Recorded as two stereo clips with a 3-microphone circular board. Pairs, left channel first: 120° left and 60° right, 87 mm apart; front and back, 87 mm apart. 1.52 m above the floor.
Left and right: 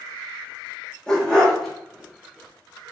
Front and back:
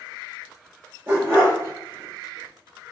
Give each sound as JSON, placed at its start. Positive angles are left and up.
{"t": 1.1, "sound": "a dog barking", "azimuth_deg": 180, "distance_m": 1.0}